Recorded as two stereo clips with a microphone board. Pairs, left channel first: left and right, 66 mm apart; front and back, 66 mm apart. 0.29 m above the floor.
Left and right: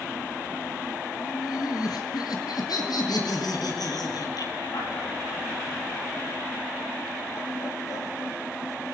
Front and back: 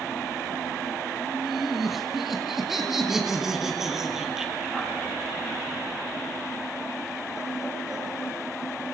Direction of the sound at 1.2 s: 90° left.